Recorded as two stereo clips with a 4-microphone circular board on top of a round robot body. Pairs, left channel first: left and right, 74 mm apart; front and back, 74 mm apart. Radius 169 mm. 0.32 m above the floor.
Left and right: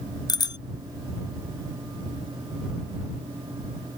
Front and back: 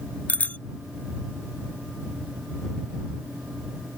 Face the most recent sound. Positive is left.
turn(degrees=70)